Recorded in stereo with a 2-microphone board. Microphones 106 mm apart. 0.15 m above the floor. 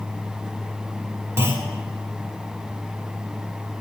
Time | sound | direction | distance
1.4 | a clunk | 25° right (ahead or behind) | 1.1 m